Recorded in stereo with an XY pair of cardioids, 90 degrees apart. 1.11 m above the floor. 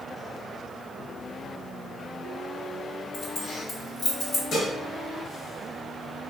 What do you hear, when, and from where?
3.1 s keys jangling: 70° left, 1.2 m
4.5 s dishes clattering: 60° left, 1.0 m